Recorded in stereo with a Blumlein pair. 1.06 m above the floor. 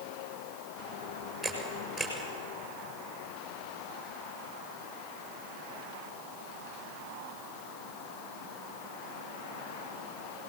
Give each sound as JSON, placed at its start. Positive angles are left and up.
{"t": 1.4, "sound": "a camera shutter", "azimuth_deg": 0, "distance_m": 7.0}